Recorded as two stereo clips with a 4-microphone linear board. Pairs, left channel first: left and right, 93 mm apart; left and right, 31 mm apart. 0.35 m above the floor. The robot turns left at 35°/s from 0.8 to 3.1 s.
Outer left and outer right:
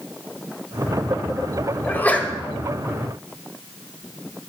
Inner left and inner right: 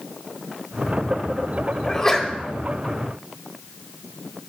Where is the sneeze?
25° left (ahead or behind), 1.3 m; by 2.3 s 10° left (ahead or behind), 1.3 m.